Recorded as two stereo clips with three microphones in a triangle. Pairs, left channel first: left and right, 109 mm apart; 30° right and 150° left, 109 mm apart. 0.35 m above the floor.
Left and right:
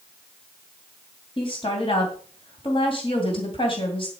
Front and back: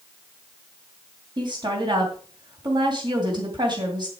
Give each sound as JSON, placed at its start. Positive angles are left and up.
{"t": 1.4, "sound": "a woman speaking", "azimuth_deg": 115, "distance_m": 2.5}